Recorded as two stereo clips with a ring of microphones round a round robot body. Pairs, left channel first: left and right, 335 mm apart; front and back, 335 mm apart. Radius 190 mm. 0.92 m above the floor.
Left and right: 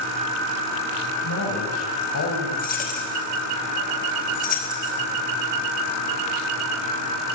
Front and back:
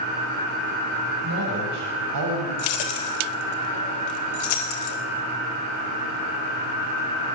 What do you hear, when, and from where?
1.2 s a man speaking: 130° left, 6.5 m; by 2.5 s 135° left, 7.5 m
2.6 s keys jangling: 20° left, 3.5 m